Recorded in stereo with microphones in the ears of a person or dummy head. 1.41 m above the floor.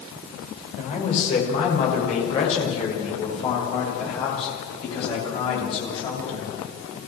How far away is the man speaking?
About 6.5 m.